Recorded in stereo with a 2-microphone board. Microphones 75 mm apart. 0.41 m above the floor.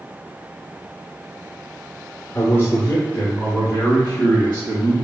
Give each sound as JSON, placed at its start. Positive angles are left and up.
{"t": 2.4, "sound": "a man speaking", "side_deg": 35, "distance_m": 0.8}